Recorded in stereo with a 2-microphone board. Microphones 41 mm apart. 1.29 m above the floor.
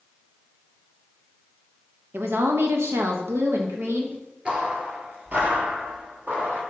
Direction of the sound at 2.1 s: 65° right (ahead or behind).